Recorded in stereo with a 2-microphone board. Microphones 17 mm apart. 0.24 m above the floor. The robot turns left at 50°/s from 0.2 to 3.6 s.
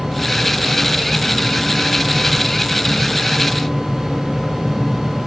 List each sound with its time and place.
Only background noise.